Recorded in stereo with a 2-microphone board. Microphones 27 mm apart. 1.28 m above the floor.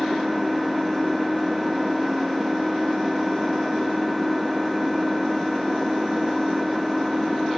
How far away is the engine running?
About 0.8 m.